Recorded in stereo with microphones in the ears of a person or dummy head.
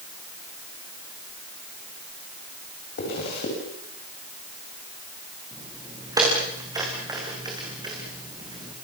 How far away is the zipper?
About 8 m.